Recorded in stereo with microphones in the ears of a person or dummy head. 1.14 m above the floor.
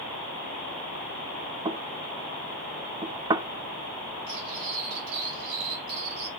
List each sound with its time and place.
1.6 s knocking: 25° right (ahead or behind), 0.9 m
4.3 s cutlery clinking: 65° right (ahead or behind), 7 m